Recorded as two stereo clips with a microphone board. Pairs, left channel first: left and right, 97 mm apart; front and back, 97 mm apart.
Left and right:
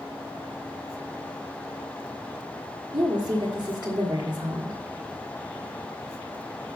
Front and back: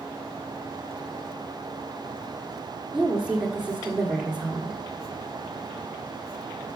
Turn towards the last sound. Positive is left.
turn(degrees=-100)